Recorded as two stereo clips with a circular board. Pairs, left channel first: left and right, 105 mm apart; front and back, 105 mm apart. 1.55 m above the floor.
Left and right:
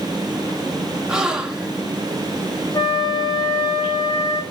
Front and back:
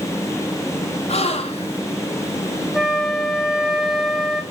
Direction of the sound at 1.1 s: 5° right.